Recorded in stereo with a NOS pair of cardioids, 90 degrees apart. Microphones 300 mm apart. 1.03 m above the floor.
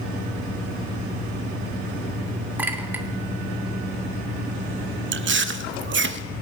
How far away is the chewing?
About 0.7 m.